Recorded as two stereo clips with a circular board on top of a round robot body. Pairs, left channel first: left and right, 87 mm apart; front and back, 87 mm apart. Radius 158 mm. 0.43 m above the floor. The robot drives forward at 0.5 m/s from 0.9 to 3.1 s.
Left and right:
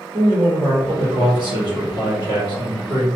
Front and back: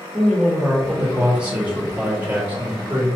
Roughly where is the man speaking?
Right.